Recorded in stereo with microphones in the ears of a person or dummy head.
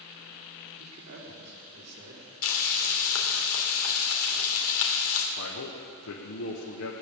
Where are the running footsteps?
No running footsteps in this recording.